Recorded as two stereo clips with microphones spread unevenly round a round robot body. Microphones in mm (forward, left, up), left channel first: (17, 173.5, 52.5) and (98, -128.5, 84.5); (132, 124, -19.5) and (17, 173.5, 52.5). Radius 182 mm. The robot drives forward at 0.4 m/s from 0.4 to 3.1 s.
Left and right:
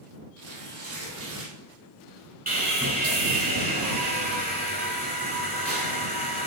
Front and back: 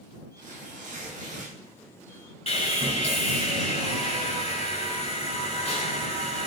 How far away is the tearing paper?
About 3.5 m.